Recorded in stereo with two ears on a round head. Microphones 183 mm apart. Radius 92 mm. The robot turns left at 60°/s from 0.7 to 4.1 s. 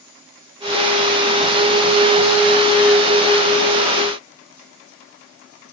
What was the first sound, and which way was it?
Only background noise.